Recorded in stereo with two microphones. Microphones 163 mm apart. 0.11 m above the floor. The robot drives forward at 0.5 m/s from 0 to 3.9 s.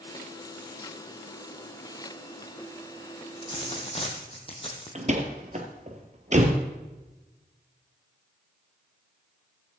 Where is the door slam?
45° right (ahead or behind), 1.7 m.